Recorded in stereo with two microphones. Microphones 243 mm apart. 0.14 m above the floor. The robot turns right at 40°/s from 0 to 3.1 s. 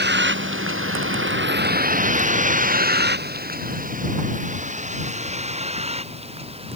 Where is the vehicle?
45° right (ahead or behind); by 6.8 s 25° right (ahead or behind).